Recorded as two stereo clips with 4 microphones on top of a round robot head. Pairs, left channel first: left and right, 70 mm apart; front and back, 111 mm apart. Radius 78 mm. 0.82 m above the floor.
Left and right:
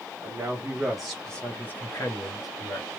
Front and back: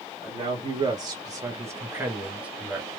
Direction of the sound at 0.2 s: 135° right.